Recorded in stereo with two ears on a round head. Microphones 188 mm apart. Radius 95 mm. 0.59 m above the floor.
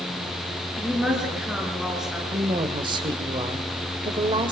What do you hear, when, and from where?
0.8 s a woman speaking: 5° right (ahead or behind), 8.5 m
2.3 s a woman speaking: 25° right (ahead or behind), 2 m